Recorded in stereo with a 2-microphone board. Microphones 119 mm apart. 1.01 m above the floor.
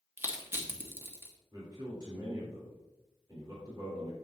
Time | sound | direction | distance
0.2 | crushing | 20° right (ahead or behind) | 1.5 m
1.5 | a man speaking | 40° right (ahead or behind) | 3.5 m